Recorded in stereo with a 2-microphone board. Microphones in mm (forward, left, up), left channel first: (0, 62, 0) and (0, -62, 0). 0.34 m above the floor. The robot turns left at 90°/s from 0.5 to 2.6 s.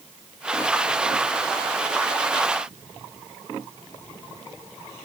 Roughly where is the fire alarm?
No fire alarm in this recording.